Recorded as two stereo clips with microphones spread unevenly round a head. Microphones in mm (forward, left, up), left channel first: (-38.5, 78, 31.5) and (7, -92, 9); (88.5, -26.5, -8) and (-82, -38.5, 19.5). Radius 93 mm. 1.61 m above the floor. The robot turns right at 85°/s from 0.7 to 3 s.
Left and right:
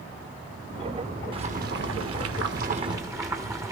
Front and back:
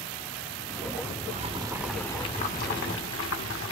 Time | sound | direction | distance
1.3 | boiling | 140° right | 1.3 m